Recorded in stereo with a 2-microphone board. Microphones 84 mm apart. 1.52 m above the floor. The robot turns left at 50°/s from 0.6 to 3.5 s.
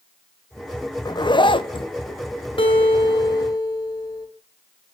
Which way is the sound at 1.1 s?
125° left.